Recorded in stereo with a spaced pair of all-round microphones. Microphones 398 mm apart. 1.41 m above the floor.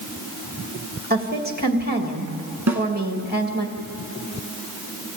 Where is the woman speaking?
25° right (ahead or behind), 2.0 m.